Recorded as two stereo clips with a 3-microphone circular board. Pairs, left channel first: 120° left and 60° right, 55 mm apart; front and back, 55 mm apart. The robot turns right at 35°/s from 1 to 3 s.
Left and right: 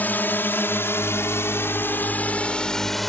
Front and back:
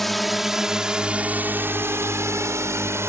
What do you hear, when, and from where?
0.0 s a drone: 85° left; by 3.1 s 155° right